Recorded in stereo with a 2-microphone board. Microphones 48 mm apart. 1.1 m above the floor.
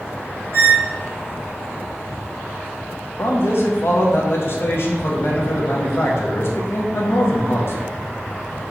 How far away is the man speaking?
About 0.6 m.